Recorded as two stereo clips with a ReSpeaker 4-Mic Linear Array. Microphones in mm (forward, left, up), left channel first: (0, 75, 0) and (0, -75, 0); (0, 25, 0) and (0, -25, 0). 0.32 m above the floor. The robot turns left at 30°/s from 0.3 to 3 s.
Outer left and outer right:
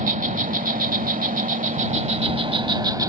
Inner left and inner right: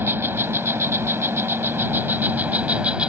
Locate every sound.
0.0 s an insect: 70° right; by 3.1 s 150° right